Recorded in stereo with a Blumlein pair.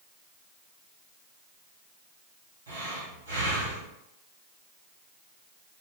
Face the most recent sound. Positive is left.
turn(degrees=-65)